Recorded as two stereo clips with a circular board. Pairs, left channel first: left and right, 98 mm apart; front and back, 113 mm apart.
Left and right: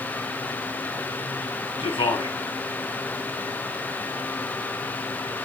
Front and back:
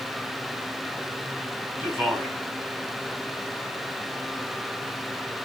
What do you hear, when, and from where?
1.8 s a man speaking: 105° left, 4 m